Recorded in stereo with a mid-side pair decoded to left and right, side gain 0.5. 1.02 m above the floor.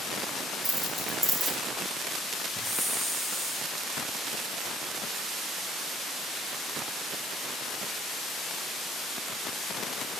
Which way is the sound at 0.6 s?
15° right.